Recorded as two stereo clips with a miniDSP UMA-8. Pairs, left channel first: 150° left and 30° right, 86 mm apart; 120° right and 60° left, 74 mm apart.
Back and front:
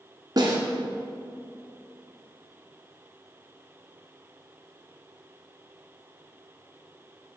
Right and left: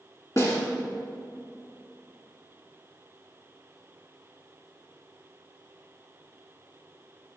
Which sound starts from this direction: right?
A snare drum, at 0.4 s.